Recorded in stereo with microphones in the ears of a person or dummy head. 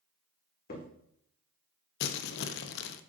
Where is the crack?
55° left (ahead or behind), 2.0 m.